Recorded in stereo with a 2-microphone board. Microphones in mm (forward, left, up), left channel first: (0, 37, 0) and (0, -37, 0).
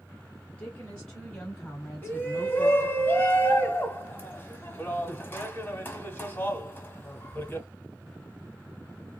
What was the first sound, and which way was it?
A woman speaking, 25° left (ahead or behind).